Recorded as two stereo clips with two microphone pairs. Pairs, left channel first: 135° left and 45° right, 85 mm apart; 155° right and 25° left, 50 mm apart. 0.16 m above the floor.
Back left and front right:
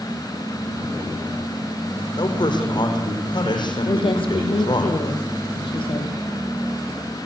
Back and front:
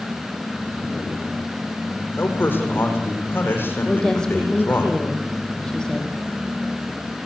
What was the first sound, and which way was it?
A man speaking, 160° left.